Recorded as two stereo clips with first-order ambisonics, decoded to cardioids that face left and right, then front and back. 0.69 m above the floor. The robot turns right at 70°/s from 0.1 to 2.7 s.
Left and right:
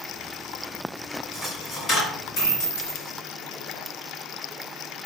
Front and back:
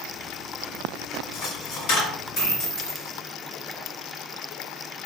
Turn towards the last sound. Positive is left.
turn(degrees=75)